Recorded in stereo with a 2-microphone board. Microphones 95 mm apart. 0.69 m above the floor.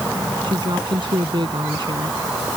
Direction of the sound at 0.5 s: 60° right (ahead or behind).